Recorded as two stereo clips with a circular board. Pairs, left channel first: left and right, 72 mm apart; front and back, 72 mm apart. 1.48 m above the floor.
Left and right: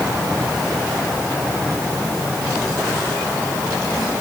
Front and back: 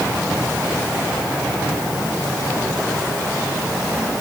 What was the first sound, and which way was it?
Only background noise.